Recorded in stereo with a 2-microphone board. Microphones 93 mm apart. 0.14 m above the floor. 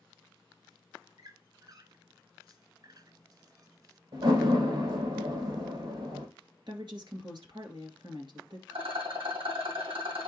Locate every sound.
1.2 s a squeak: 45° right (ahead or behind), 0.8 m
4.1 s a door slam: 60° right (ahead or behind), 3.5 m
6.7 s a woman speaking: 55° right (ahead or behind), 2 m
8.7 s a rattle: 80° right, 3.5 m